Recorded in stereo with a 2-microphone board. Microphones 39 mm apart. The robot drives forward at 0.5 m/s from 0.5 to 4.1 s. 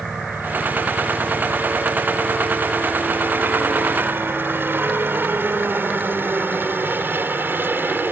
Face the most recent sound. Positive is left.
turn(degrees=-60)  # may be behind; listen again after turning